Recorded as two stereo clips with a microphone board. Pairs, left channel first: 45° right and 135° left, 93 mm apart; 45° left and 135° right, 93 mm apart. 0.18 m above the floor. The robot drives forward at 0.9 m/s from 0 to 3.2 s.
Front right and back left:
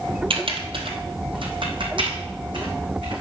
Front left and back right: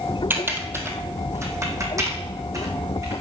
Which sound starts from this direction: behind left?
Typing on a keyboard, at 0.3 s.